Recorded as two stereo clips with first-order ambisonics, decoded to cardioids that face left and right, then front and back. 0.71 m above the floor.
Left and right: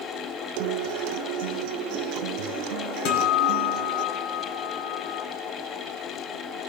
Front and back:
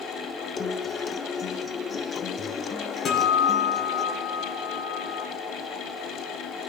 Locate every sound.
0.6 s a guitar: 70° right, 0.5 m
3.0 s a guitar: 70° left, 3.5 m